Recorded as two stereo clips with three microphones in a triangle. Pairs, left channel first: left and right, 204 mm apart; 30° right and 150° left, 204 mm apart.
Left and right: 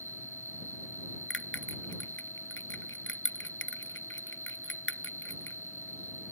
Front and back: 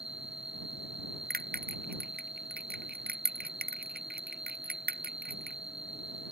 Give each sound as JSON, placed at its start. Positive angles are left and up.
{"t": 0.0, "sound": "an insect", "azimuth_deg": 90}
{"t": 1.3, "sound": "a bell", "azimuth_deg": 110}